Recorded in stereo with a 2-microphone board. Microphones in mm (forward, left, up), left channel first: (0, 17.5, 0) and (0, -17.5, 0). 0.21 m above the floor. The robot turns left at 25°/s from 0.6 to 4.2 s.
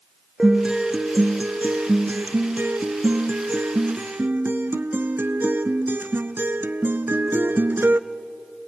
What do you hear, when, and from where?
0.4 s a guitar: 25° right, 0.7 m; by 8.0 s 115° right, 0.7 m